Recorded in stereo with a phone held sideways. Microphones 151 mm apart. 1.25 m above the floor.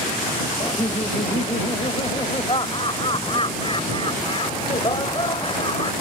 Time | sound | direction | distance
0.6 | laughter | 35° left (ahead or behind) | ?